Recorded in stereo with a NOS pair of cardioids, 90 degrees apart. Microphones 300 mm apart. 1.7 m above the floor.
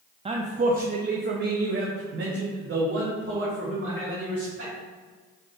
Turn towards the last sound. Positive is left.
turn(degrees=-45)